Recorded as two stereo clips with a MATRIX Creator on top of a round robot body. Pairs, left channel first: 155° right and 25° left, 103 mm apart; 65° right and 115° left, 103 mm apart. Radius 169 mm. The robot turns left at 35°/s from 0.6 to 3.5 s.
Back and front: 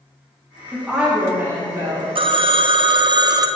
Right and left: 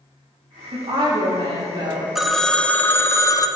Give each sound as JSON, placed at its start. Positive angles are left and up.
{"t": 0.7, "sound": "a woman speaking", "azimuth_deg": 115, "distance_m": 2.0}
{"t": 2.1, "sound": "a phone ringing", "azimuth_deg": 25, "distance_m": 0.6}